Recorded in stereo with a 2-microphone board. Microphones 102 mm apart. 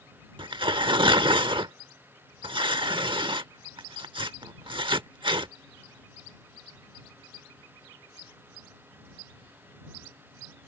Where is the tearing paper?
55° right (ahead or behind).